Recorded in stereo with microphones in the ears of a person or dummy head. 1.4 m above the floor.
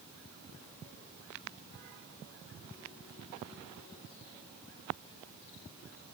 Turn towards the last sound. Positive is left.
No sound to turn to.